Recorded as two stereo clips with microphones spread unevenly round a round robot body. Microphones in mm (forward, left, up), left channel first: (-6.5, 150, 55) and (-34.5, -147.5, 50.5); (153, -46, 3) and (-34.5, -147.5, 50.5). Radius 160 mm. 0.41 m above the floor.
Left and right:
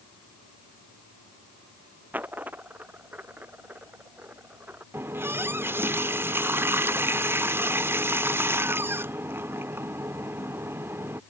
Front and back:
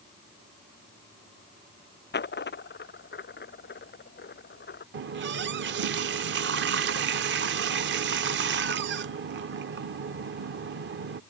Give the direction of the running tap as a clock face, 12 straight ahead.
6 o'clock.